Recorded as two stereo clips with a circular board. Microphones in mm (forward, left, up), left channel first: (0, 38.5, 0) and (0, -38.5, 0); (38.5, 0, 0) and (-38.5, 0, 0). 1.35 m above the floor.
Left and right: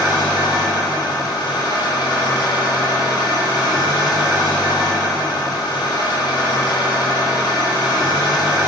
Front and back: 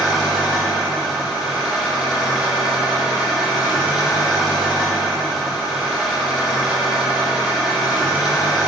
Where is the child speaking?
I don't hear a child speaking.